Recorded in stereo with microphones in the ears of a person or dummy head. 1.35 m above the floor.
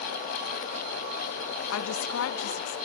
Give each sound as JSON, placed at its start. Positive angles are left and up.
{"t": 1.7, "sound": "a woman speaking", "side_deg": 75, "distance_m": 0.9}